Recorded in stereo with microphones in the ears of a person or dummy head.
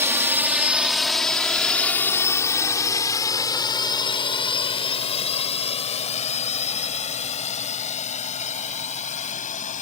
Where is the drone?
20° right (ahead or behind); by 9.8 s 30° left (ahead or behind).